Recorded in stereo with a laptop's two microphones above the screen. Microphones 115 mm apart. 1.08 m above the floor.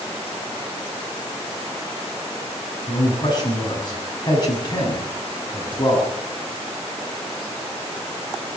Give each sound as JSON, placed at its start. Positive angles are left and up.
{"t": 2.9, "sound": "a man speaking", "side_deg": 40, "distance_m": 6.5}